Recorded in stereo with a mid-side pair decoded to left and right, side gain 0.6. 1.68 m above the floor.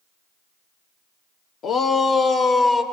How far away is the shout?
About 1.1 m.